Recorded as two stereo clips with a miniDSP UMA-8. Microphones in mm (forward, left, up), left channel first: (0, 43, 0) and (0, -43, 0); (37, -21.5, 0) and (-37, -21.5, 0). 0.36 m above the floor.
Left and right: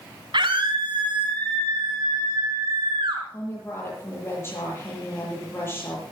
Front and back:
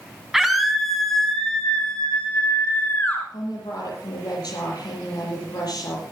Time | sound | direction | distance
0.3 | a scream | 95° right | 3.5 m
3.3 | a woman speaking | 30° left | 9 m